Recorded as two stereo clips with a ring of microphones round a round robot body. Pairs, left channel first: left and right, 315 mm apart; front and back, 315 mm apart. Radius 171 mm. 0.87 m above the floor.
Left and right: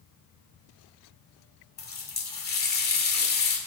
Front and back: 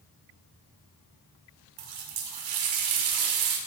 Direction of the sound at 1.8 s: 150° left.